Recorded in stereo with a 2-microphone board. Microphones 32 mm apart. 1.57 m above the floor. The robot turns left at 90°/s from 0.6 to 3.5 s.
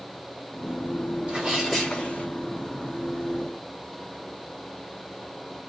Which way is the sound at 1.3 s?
145° right.